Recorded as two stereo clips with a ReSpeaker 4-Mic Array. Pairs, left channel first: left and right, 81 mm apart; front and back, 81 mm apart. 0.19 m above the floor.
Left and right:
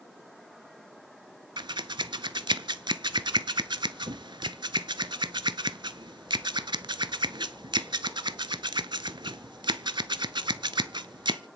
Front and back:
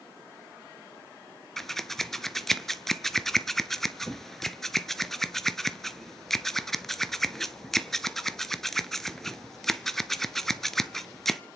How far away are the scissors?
About 0.7 m.